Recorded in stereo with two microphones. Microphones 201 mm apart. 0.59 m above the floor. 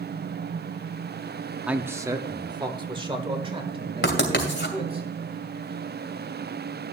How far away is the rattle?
I don't hear a rattle.